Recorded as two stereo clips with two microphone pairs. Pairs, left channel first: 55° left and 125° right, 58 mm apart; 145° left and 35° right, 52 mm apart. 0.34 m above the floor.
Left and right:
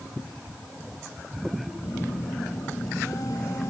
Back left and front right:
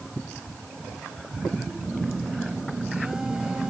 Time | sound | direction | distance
1.8 | a phone buzzing | 40° left | ?